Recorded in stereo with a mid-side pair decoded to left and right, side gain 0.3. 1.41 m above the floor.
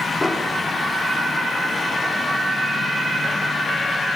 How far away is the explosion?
About 4.5 m.